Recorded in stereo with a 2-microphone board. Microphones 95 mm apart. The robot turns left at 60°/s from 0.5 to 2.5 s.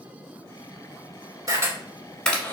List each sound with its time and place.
1.5 s a camera shutter: 40° right (ahead or behind), 1.3 m; by 2.5 s 20° left (ahead or behind), 1.3 m